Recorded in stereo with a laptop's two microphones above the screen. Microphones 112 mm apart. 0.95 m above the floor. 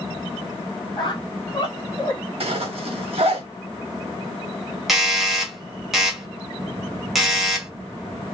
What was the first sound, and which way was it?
A squeak, 40° left (ahead or behind).